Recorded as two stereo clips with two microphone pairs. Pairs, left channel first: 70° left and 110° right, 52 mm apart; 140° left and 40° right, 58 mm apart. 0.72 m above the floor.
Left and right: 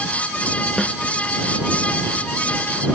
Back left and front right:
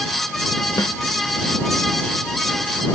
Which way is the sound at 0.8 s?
160° left.